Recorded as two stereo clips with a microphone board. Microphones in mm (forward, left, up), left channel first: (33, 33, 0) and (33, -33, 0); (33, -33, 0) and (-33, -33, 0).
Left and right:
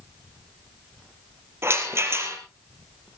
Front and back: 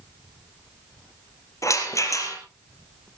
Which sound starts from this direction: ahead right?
A rattle, at 1.6 s.